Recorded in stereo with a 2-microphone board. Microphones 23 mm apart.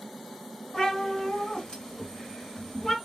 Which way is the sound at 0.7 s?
45° left (ahead or behind).